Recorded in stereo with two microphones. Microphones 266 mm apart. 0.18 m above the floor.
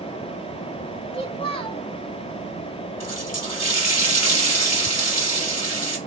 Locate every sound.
1.1 s a child speaking: 20° left (ahead or behind), 0.7 m
3.0 s a running tap: 70° left (ahead or behind), 2.5 m